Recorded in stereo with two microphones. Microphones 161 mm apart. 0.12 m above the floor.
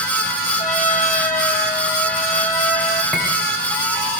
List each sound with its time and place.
0.6 s a trumpet: 50° left (ahead or behind), 3 m
3.1 s cutlery clinking: 5° left (ahead or behind), 7.5 m